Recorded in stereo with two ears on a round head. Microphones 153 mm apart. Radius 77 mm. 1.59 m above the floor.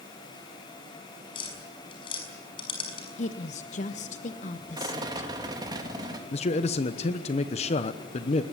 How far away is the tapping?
About 6 m.